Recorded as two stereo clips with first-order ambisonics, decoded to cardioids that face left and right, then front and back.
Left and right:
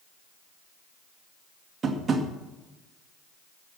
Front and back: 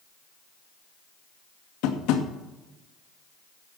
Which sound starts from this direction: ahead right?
Tapping, at 1.8 s.